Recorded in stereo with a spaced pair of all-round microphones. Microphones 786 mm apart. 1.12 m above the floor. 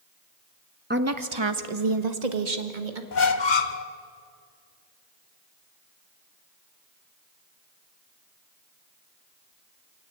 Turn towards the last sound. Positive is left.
turn(degrees=65)  # may be behind; listen again after turning